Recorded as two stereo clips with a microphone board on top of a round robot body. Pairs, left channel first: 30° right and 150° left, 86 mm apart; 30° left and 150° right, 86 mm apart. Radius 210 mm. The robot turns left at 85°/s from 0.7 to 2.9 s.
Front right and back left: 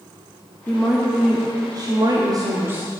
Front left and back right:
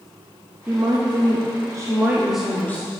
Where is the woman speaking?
95° right, 1.1 m; by 2.9 s 75° left, 1.1 m.